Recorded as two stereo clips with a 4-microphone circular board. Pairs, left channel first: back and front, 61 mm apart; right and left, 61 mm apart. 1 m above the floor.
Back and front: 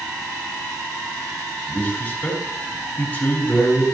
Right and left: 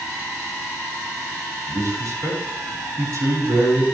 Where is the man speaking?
115° left, 5.5 m.